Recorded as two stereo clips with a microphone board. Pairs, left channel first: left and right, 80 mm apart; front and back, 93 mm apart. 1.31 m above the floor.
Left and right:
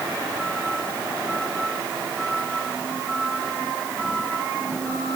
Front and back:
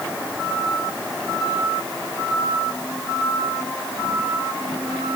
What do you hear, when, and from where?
Only background noise.